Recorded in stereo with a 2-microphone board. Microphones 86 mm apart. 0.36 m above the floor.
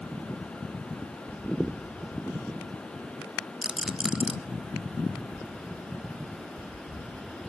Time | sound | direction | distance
3.6 | a rattle | 10° right (ahead or behind) | 0.6 m